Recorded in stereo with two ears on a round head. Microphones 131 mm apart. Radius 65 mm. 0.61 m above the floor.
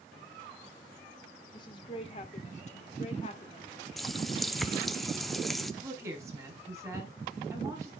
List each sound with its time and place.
1.5 s a woman speaking: 35° left (ahead or behind), 2.5 m
4.0 s a running tap: centre (ahead or behind), 0.7 m
5.8 s a woman speaking: 20° right (ahead or behind), 4.5 m